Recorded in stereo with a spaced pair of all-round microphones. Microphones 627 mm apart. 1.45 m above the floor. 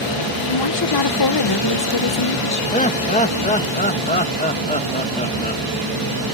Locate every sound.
0.5 s a woman speaking: 40° left (ahead or behind)
2.7 s laughter: 10° left (ahead or behind)